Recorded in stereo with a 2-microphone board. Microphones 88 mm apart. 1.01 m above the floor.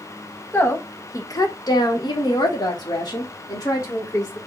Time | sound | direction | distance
0.5 | a woman speaking | 25° left (ahead or behind) | 1.4 m